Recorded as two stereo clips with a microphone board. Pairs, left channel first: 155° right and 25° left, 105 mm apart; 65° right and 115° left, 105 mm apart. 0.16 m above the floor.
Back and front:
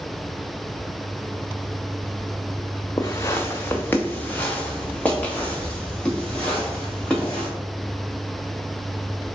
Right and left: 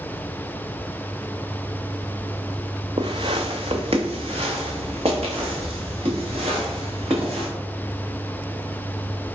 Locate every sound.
3.0 s footsteps: 145° left, 0.5 m; by 7.5 s 125° left, 3 m